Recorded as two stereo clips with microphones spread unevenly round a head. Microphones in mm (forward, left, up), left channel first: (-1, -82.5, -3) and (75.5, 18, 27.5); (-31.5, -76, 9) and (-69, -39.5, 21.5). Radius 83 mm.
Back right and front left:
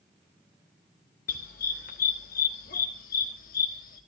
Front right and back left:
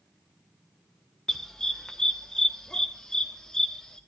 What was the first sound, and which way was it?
A dog barking, 130° right.